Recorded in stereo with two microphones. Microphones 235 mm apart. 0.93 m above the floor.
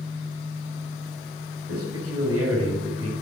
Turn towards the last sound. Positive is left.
turn(degrees=-80)